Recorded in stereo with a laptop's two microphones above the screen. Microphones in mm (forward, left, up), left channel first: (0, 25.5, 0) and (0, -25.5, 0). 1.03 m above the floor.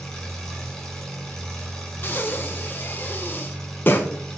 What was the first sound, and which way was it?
An engine running, 10° left (ahead or behind).